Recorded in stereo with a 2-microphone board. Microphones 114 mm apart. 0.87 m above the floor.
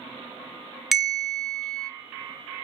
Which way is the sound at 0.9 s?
Centre (ahead or behind).